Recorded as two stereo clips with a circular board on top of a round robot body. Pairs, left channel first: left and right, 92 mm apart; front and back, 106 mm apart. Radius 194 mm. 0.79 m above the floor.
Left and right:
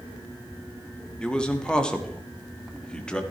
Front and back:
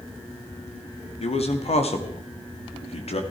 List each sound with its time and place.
1.2 s a man speaking: 10° left, 2.0 m